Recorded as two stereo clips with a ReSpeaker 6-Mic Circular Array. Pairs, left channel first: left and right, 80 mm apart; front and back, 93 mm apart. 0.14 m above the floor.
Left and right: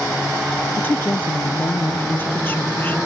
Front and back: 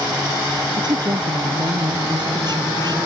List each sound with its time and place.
0.8 s a woman speaking: 150° left